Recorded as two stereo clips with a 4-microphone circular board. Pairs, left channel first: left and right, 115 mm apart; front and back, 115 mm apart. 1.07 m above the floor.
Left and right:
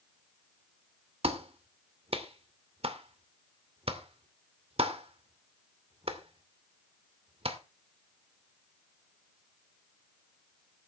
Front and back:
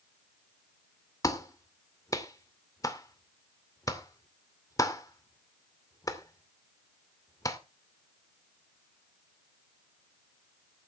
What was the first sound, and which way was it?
A clap, 60° right.